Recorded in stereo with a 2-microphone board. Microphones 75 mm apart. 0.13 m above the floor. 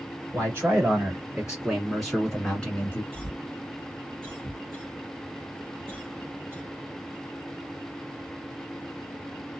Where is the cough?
25° right (ahead or behind), 1.6 m.